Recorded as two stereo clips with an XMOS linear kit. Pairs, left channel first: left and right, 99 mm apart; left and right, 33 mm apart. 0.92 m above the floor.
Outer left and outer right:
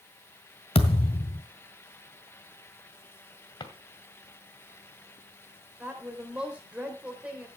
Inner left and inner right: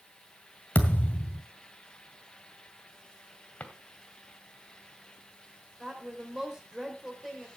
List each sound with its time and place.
0.8 s a thud: 75° left (ahead or behind), 1.7 m
3.6 s a drawer: 50° left (ahead or behind), 2 m
5.8 s a woman speaking: 15° right (ahead or behind), 3.5 m